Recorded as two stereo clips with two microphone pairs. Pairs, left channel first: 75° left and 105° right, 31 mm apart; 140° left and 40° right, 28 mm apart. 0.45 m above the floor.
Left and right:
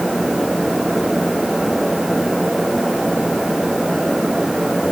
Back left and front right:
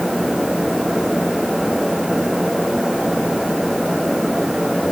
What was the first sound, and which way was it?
Only background noise.